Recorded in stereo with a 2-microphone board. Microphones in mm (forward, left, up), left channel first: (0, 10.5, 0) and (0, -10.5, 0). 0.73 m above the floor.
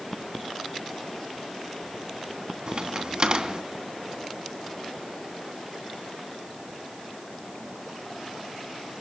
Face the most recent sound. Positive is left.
turn(degrees=-45)  # may be behind; listen again after turning